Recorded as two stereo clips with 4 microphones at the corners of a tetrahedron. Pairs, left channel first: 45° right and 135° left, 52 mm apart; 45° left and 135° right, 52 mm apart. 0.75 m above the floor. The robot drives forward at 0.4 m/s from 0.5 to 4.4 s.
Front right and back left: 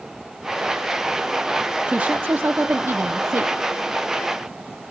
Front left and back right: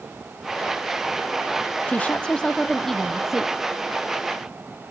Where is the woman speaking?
80° left, 0.6 m; by 3.5 s 145° left, 0.9 m.